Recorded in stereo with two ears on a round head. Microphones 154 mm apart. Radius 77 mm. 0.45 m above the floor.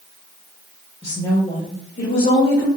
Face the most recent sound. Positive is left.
turn(degrees=55)  # may be behind; listen again after turning